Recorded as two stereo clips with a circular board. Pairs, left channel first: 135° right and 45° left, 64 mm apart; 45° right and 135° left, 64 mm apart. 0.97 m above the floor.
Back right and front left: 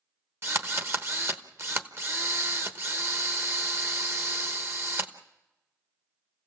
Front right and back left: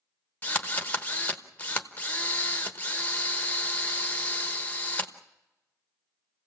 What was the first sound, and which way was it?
A drill, 15° left.